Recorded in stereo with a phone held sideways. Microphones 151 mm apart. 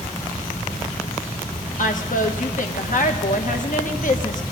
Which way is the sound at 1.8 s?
60° left (ahead or behind).